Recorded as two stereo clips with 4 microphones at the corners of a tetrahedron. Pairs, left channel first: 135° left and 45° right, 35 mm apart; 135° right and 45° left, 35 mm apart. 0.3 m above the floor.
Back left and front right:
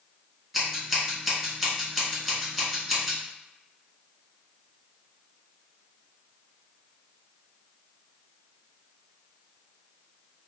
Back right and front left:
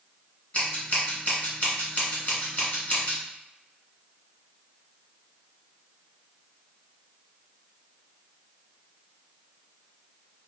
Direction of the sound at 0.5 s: 125° right.